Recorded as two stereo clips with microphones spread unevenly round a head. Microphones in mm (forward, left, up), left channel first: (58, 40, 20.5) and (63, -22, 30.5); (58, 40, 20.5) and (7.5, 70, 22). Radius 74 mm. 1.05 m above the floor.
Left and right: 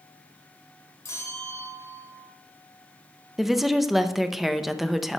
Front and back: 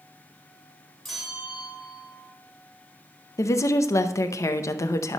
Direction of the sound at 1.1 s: 55° left.